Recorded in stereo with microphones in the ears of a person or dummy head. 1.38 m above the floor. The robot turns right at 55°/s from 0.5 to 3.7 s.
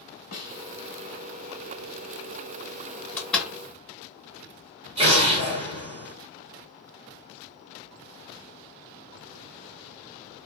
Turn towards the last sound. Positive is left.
turn(degrees=-30)  # may be behind; listen again after turning